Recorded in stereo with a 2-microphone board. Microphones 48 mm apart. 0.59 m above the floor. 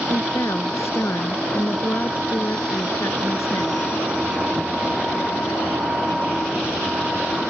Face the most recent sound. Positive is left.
turn(degrees=85)